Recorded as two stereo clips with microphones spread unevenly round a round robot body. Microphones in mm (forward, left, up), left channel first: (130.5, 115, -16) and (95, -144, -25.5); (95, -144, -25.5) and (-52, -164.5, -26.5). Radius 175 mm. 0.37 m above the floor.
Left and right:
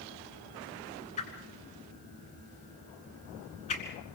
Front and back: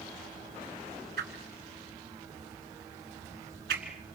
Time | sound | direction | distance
1.2 | a whoosh | 155° left | 1.4 m